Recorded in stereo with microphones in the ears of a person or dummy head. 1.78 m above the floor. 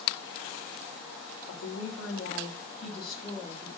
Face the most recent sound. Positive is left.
turn(degrees=15)  # may be behind; listen again after turning